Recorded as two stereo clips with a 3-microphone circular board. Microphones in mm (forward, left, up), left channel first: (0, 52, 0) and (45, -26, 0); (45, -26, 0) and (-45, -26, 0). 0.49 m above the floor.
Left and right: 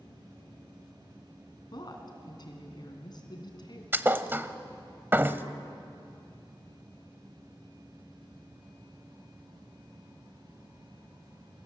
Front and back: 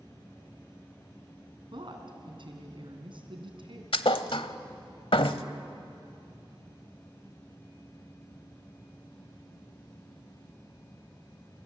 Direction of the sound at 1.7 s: 155° left.